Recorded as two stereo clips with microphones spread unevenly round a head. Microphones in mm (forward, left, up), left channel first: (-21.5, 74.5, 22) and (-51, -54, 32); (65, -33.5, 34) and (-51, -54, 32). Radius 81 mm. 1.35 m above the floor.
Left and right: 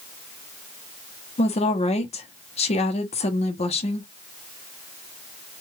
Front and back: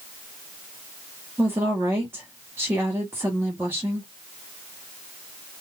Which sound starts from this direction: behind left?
A woman speaking, at 1.4 s.